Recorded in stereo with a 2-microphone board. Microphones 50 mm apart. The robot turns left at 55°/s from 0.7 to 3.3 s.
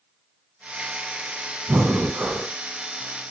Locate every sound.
1.7 s breathing: 110° right, 0.6 m; by 2.5 s 155° right, 0.6 m